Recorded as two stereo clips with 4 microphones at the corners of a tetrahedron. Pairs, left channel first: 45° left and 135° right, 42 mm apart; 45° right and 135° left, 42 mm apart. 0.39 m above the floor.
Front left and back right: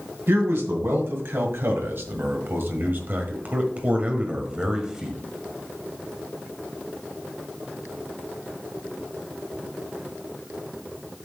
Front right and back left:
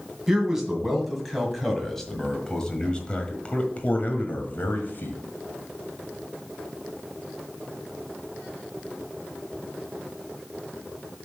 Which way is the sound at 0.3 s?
145° right.